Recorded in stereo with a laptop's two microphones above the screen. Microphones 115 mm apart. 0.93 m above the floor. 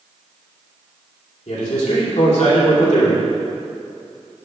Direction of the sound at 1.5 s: 80° left.